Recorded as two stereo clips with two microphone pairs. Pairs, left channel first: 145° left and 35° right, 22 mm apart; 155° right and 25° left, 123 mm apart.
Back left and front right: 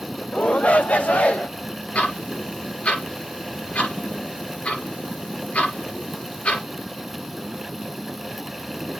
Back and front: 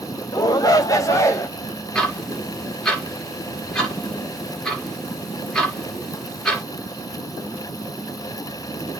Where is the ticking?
120° left, 3 m.